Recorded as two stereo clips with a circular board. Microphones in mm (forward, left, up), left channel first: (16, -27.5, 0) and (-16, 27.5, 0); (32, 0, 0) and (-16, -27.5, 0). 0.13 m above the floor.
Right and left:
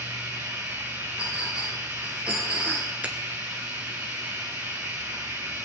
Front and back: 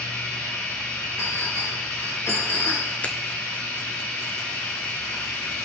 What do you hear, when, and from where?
0.0 s running water: 70° left, 2.5 m
1.2 s a clink: 50° left, 6.5 m
3.0 s a finger snap: 70° left, 1.0 m